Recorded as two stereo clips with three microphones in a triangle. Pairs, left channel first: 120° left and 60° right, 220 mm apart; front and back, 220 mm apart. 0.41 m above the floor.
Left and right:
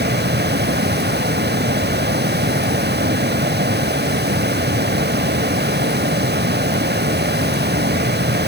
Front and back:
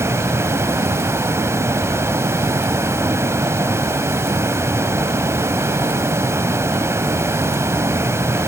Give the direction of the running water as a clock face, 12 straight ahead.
3 o'clock.